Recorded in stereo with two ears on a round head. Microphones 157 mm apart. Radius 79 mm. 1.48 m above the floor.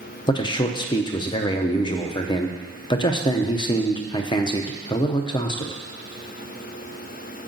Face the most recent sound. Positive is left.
turn(degrees=25)  # may be behind; listen again after turning